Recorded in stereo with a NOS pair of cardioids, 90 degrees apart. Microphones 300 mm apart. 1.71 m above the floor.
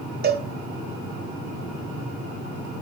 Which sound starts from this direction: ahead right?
A cowbell, at 0.2 s.